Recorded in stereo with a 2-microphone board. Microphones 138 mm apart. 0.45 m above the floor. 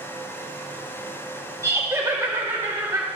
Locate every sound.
1.6 s laughter: 20° right (ahead or behind), 1.3 m